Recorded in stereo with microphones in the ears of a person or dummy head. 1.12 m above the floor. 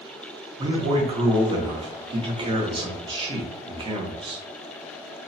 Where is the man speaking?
25° right (ahead or behind), 0.7 m.